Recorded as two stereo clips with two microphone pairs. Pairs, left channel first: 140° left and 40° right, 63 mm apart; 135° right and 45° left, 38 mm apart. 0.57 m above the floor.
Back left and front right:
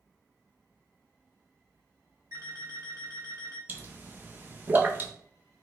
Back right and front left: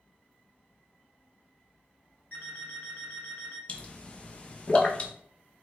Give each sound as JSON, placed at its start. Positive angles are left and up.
{"t": 2.3, "sound": "an alarm clock", "azimuth_deg": -85, "distance_m": 2.0}
{"t": 3.7, "sound": "a pop", "azimuth_deg": -90, "distance_m": 0.5}